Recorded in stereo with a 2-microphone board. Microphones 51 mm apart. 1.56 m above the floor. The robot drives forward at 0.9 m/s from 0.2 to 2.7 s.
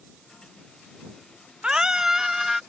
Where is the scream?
20° right (ahead or behind); by 2.6 s 10° right (ahead or behind).